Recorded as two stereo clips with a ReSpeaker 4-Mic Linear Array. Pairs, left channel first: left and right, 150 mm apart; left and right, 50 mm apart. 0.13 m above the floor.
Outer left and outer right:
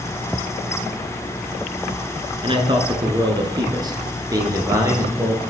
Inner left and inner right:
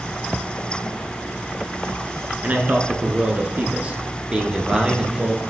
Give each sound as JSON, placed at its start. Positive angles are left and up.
{"t": 2.4, "sound": "a man speaking", "side_deg": -35, "distance_m": 1.5}